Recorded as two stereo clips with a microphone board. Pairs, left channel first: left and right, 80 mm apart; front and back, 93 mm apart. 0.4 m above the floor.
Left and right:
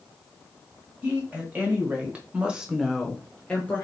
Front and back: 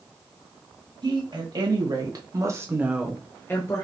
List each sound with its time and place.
1.0 s a woman speaking: 155° right, 2.5 m; by 3.9 s 25° left, 1.1 m